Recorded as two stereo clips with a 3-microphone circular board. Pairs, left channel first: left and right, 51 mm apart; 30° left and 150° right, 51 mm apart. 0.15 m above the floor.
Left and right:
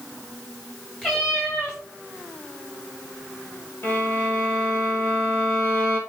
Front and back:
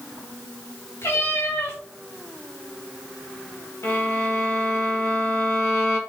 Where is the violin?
50° left, 3.5 m.